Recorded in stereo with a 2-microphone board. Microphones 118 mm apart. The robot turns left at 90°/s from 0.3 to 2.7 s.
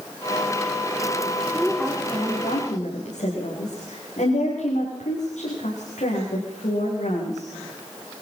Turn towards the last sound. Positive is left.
turn(degrees=90)